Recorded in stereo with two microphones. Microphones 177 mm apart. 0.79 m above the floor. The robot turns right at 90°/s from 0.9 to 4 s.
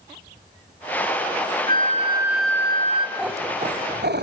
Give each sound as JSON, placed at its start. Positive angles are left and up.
{"t": 1.7, "sound": "a flute", "azimuth_deg": -65, "distance_m": 2.0}
{"t": 3.2, "sound": "a cat meowing", "azimuth_deg": 180, "distance_m": 1.6}